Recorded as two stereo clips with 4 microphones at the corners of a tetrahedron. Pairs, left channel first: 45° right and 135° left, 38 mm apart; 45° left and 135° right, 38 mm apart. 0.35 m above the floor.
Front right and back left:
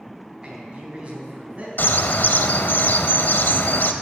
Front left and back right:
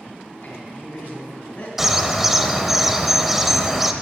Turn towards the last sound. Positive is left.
turn(degrees=-55)